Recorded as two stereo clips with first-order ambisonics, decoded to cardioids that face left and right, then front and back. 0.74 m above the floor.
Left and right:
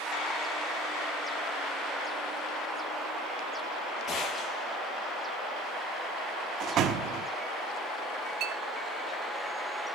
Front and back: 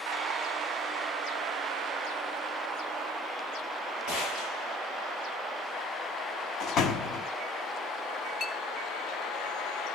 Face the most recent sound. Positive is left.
turn(degrees=-45)